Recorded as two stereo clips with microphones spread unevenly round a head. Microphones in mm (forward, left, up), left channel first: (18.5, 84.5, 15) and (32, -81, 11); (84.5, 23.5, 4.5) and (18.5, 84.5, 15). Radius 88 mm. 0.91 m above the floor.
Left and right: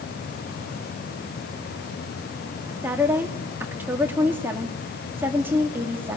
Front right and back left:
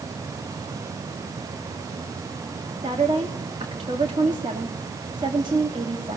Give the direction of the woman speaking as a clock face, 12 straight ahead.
5 o'clock.